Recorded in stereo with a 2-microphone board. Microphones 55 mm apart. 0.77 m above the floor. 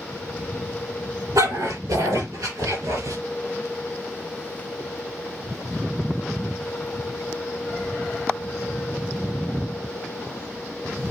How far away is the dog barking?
About 7.5 m.